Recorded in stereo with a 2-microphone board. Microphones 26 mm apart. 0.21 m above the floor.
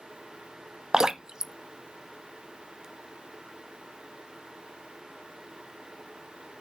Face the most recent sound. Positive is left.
turn(degrees=-25)  # may be behind; listen again after turning